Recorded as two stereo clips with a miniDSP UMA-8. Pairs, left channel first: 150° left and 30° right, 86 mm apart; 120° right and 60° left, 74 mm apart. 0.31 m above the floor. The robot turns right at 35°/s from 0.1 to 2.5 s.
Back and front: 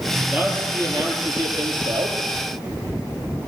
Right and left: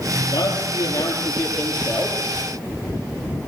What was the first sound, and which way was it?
A man speaking, 105° right.